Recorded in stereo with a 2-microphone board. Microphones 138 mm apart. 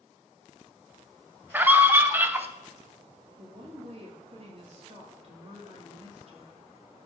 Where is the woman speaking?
45° right (ahead or behind), 2.5 m.